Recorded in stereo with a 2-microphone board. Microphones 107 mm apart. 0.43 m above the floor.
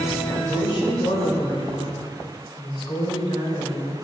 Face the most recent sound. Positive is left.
turn(degrees=50)  # may be behind; listen again after turning